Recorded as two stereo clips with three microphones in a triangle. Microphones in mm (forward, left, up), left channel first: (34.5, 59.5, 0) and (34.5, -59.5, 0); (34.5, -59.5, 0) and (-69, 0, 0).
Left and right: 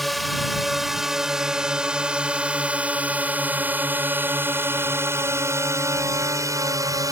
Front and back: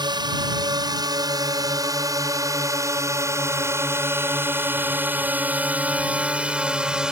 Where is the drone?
Straight behind; by 7.1 s 130° right.